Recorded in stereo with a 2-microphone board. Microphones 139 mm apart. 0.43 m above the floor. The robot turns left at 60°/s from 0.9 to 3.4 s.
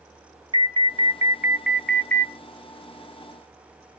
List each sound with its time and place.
0.5 s an alarm: 125° right, 0.8 m; by 2.3 s 150° left, 0.8 m